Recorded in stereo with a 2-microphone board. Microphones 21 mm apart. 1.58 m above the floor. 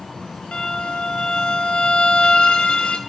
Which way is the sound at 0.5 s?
60° left (ahead or behind).